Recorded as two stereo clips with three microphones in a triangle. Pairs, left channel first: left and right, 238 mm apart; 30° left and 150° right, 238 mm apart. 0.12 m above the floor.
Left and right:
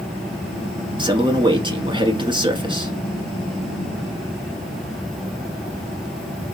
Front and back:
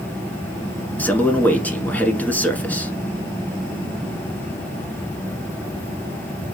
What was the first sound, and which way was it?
A man speaking, 45° right.